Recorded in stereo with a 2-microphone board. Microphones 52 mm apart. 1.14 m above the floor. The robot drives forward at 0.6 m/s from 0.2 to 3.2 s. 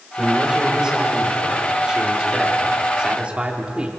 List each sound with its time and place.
0.2 s a man speaking: 15° right (ahead or behind), 5 m; by 3.9 s 25° right (ahead or behind), 3.5 m